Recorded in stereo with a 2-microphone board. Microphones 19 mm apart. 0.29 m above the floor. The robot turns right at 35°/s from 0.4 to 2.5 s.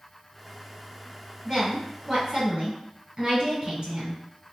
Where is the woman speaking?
145° right, 1.9 m; by 4.2 s 110° right, 1.9 m.